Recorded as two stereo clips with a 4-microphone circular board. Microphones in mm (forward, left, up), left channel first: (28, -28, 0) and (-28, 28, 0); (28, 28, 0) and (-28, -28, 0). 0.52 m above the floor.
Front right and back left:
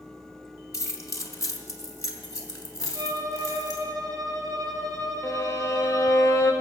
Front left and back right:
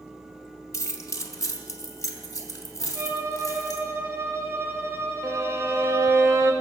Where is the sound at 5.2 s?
85° right, 1.5 m.